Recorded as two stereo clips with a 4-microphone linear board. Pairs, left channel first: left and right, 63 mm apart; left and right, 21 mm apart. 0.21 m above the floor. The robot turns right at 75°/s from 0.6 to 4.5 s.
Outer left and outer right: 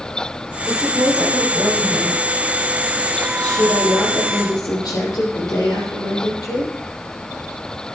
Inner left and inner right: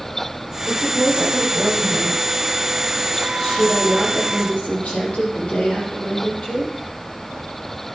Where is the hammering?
No hammering in this recording.